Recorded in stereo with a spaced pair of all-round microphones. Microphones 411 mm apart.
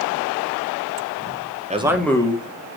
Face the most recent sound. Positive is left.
turn(degrees=25)  # may be behind; listen again after turning